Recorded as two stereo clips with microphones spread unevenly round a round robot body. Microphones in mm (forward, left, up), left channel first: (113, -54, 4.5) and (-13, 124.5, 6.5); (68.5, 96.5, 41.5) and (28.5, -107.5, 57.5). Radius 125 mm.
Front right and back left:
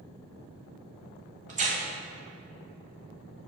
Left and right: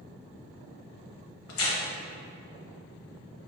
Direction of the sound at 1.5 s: 65° left.